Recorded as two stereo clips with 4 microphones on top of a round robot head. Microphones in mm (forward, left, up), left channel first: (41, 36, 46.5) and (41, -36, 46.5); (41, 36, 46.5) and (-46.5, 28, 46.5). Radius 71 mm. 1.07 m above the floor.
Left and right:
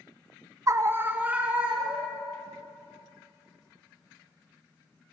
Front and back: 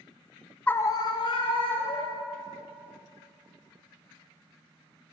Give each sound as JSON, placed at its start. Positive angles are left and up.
{"t": 0.7, "sound": "a scream", "azimuth_deg": -65, "distance_m": 0.5}